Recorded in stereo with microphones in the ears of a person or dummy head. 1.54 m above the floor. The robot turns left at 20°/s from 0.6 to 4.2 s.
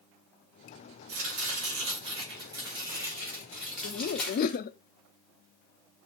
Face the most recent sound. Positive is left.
turn(degrees=55)  # may be behind; listen again after turning